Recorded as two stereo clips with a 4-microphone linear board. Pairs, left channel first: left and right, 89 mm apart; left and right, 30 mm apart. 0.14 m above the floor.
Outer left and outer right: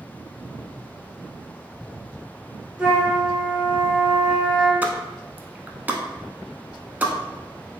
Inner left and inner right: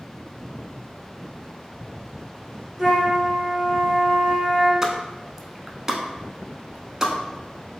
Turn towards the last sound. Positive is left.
turn(degrees=-20)  # may be behind; listen again after turning